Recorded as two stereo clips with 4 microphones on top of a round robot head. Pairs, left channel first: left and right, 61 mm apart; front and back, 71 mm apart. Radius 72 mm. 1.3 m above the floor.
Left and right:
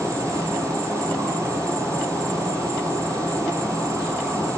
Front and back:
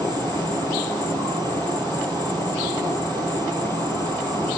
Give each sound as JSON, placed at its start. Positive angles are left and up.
{"t": 0.0, "sound": "an insect", "azimuth_deg": -45, "distance_m": 3.0}